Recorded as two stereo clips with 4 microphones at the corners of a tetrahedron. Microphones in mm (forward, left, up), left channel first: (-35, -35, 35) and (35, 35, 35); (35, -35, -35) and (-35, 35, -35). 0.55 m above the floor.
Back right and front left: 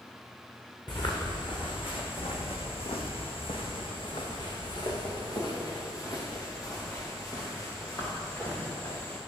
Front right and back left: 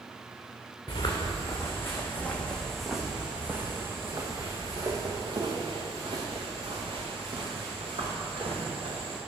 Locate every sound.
0.9 s footsteps: 95° right, 2.5 m; by 9.2 s 155° left, 5.5 m